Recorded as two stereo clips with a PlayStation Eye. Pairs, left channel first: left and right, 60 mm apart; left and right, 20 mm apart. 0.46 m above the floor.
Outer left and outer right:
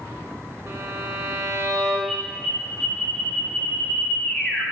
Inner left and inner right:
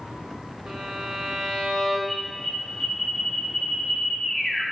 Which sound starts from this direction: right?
A violin, at 0.7 s.